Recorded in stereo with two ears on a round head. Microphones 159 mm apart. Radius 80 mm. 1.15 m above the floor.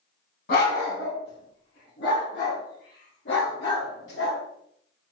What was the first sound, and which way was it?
A dog barking, 55° left (ahead or behind).